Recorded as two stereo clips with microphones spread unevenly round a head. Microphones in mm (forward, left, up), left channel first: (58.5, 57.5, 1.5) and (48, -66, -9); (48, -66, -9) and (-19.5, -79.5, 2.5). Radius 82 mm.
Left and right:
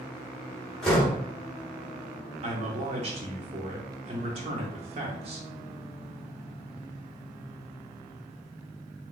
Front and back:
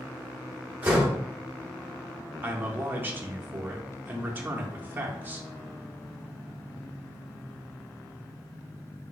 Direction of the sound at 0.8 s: 160° left.